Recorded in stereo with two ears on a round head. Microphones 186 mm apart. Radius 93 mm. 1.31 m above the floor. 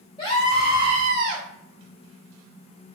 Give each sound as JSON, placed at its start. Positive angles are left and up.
{"t": 0.2, "sound": "a scream", "side_deg": 20, "distance_m": 0.7}